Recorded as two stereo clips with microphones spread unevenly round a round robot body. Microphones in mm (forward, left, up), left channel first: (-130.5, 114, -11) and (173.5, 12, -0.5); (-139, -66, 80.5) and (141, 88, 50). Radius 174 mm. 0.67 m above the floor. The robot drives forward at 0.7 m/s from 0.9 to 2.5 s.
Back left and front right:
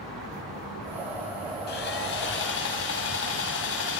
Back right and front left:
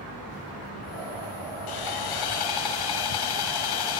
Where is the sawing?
135° right, 4.5 m; by 4.0 s 140° right, 5 m.